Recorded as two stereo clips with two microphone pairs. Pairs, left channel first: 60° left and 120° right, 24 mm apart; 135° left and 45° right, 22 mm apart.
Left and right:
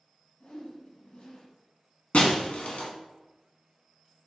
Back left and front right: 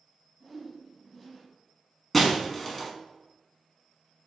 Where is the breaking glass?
60° left, 0.7 m.